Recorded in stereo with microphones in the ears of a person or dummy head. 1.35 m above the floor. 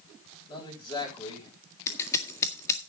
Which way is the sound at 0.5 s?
25° left (ahead or behind).